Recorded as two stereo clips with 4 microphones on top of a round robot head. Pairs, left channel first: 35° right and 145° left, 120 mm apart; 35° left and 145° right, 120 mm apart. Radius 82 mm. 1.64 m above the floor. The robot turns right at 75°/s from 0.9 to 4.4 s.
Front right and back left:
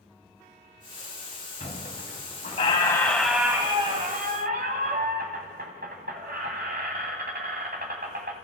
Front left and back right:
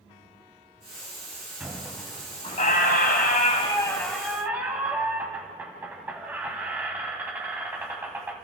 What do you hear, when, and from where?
1.6 s a squeak: 70° right, 2 m; by 8.3 s 140° left, 2 m